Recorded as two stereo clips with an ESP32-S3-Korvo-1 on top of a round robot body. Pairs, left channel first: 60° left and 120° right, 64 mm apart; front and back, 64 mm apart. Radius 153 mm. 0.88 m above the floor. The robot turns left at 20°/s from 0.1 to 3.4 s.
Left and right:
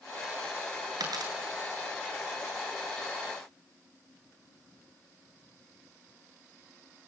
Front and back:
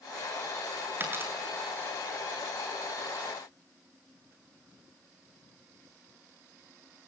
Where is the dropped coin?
125° right, 8 m; by 1.3 s 130° right, 8 m.